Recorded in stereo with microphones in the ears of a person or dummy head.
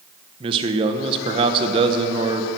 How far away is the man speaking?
About 1.4 m.